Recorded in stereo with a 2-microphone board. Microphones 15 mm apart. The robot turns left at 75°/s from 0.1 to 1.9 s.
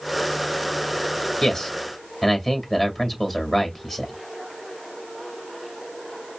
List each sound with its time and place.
1.4 s a man speaking: 40° left (ahead or behind), 2.0 m; by 4.1 s 10° left (ahead or behind), 2.0 m